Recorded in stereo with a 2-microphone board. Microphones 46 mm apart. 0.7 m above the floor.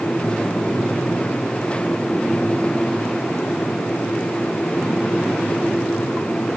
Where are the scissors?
No scissors in this recording.